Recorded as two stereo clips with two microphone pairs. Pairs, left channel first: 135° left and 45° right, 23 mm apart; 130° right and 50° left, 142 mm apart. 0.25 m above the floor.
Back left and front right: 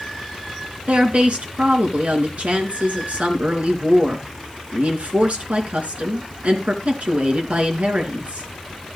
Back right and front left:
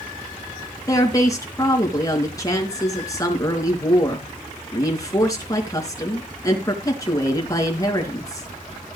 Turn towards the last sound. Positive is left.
turn(degrees=-65)